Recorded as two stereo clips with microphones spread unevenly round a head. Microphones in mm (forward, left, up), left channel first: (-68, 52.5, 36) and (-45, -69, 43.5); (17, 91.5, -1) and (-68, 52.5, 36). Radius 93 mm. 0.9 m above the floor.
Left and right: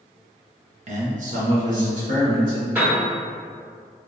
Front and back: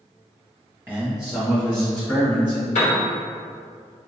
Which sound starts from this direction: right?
A man speaking, at 0.9 s.